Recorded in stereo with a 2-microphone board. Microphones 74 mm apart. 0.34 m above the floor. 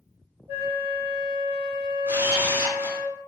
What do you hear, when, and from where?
0.5 s a flute: 25° right (ahead or behind), 1.6 m
2.1 s a camera shutter: 30° right (ahead or behind), 0.7 m